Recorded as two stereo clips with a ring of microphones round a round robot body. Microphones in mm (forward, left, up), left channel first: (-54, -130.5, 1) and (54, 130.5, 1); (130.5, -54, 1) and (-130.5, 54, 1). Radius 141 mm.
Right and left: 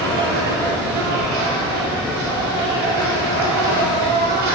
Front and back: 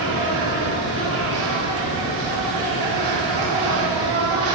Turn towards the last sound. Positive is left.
turn(degrees=85)